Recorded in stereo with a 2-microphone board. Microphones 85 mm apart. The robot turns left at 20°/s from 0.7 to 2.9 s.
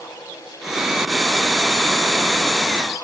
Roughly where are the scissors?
I don't hear scissors.